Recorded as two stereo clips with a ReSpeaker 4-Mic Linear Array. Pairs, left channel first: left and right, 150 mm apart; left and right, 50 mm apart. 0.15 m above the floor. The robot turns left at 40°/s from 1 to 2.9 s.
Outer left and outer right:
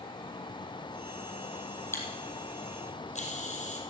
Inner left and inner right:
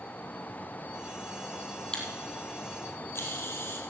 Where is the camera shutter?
15° left (ahead or behind), 3.5 m; by 3.8 s 50° left (ahead or behind), 3.5 m.